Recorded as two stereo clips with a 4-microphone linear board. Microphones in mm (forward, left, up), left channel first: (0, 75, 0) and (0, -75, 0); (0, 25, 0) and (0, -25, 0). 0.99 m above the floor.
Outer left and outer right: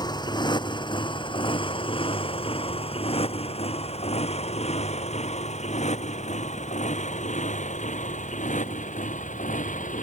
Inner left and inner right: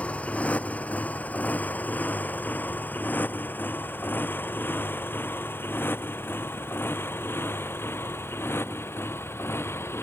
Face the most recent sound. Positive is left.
turn(degrees=55)  # may be behind; listen again after turning